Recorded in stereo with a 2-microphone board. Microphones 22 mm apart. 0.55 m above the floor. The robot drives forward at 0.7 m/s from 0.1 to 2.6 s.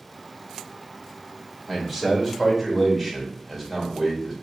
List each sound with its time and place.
1.7 s a man speaking: 5° left (ahead or behind), 1.6 m